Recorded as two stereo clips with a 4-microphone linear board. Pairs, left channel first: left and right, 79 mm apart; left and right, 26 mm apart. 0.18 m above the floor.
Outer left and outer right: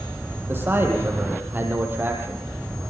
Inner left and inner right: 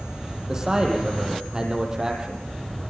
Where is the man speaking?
25° right (ahead or behind), 5.5 m.